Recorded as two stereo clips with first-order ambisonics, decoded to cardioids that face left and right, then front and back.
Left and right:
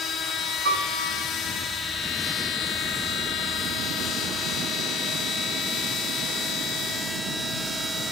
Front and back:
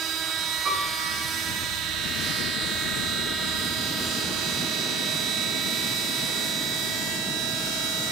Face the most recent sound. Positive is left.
turn(degrees=-120)